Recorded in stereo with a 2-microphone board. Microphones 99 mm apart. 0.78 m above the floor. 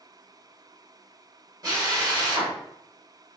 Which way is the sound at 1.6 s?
40° right (ahead or behind).